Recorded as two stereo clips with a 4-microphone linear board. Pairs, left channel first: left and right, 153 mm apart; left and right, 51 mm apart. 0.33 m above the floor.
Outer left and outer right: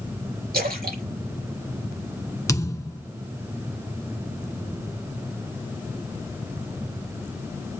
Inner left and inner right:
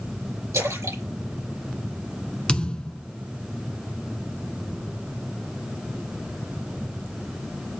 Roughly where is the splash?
Right.